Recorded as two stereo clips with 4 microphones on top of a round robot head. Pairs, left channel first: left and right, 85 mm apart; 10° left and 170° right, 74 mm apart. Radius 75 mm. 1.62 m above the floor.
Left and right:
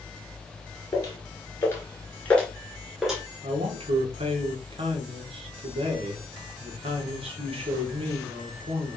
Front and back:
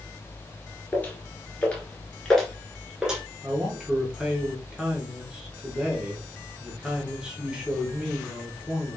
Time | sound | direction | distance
0.9 | footsteps | 60° left | 1.8 m
3.4 | a man speaking | 90° right | 2 m